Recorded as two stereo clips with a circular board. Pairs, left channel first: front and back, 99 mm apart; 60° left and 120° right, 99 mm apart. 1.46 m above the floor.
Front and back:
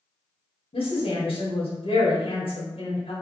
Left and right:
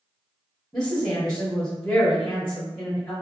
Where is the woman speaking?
20° right, 1.0 m.